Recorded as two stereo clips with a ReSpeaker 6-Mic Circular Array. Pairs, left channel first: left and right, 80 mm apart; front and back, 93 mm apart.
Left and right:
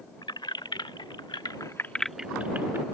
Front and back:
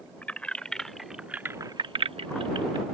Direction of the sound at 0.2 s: 75° left.